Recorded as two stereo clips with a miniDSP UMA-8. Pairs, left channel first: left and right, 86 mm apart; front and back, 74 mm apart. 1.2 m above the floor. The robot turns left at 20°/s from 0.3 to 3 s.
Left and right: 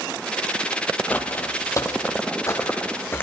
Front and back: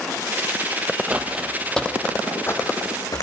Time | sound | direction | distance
1.1 | footsteps | 130° left | 1.3 m